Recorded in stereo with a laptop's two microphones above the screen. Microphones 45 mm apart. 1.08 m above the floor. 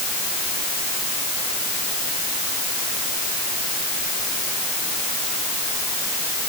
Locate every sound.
Only background noise.